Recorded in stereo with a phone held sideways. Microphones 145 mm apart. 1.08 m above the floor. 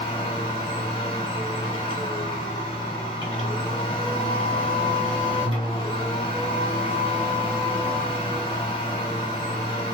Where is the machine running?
35° left (ahead or behind), 1.0 m.